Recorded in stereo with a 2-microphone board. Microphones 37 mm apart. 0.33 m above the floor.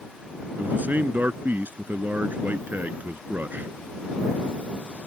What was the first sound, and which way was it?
A man speaking, 50° right (ahead or behind).